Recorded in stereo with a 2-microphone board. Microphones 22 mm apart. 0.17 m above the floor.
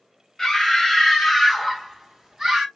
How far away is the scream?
About 1.4 m.